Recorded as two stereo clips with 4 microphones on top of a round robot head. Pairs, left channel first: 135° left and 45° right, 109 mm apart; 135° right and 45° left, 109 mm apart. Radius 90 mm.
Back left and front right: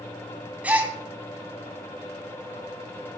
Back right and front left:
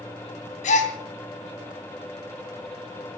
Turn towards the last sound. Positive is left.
turn(degrees=-125)